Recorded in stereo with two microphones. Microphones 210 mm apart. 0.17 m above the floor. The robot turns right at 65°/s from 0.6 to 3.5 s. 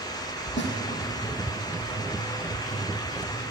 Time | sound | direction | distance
0.6 | a snare drum | 60° left (ahead or behind) | 5.5 m